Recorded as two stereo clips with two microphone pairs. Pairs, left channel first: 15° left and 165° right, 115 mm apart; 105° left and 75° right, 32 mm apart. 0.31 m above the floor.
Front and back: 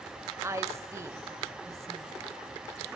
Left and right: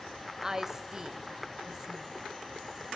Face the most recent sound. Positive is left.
turn(degrees=-135)